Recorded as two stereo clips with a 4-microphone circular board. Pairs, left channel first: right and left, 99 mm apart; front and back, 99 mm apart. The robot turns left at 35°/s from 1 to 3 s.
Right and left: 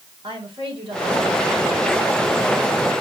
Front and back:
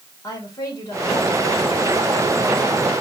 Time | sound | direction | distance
0.2 | a woman speaking | 60° left | 4.5 m